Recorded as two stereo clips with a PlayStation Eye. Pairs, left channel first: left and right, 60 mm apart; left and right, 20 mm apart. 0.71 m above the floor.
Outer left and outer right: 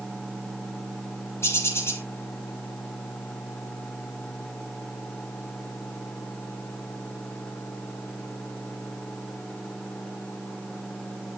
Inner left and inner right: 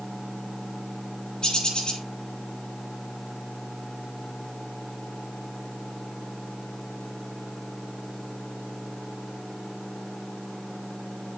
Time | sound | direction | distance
1.4 | a bird | 45° left (ahead or behind) | 4 m